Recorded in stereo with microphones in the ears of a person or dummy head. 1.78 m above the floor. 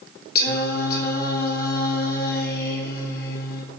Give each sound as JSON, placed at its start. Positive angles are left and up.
{"t": 0.3, "sound": "singing", "side_deg": 55, "distance_m": 1.5}